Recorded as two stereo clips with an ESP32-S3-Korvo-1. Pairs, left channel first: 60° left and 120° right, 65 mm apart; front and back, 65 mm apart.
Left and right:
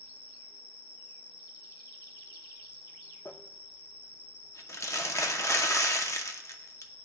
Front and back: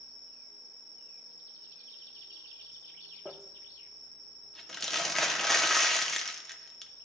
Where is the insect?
Straight behind, 0.9 m.